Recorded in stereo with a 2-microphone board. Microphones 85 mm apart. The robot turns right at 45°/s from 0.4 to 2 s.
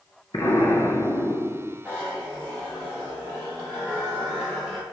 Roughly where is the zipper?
Centre.